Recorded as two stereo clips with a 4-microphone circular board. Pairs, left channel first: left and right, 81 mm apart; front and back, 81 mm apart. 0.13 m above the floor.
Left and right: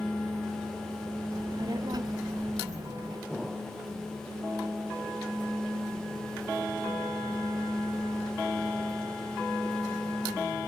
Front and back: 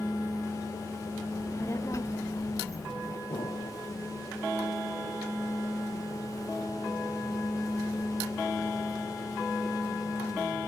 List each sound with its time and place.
1.3 s a child speaking: 50° right
3.3 s an explosion: straight ahead